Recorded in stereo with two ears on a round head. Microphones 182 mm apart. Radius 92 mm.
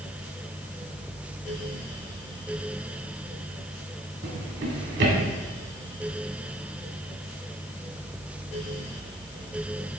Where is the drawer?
60° right (ahead or behind), 1.8 m.